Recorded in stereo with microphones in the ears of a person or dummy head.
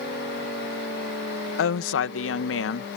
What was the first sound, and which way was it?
A woman speaking, 75° left (ahead or behind).